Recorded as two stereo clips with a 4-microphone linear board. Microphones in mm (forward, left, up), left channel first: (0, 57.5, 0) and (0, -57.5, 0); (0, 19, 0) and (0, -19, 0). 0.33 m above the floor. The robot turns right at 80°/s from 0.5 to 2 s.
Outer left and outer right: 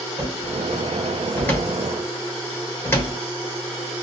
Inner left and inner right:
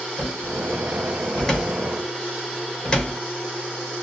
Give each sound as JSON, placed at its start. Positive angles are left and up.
{"t": 0.2, "sound": "a cupboard door", "side_deg": -10, "distance_m": 1.1}